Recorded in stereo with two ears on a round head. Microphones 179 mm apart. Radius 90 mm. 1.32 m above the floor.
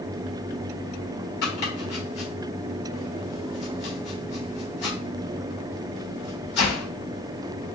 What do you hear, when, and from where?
1.4 s chopping: 55° left (ahead or behind), 1.9 m